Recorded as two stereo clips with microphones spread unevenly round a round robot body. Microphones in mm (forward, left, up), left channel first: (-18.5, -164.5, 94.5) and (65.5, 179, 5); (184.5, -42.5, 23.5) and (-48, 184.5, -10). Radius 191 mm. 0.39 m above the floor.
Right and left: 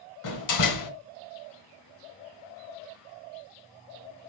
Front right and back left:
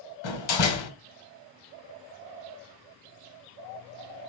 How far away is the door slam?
About 1.6 m.